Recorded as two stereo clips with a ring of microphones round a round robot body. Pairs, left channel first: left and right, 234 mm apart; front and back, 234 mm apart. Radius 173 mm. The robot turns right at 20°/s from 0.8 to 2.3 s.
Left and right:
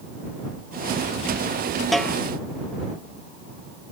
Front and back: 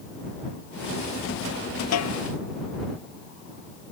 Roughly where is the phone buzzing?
No phone buzzing in this recording.